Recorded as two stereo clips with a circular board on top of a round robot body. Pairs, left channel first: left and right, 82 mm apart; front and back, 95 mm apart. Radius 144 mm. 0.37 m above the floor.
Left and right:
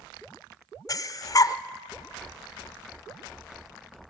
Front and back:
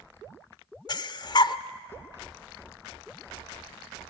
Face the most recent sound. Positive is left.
turn(degrees=40)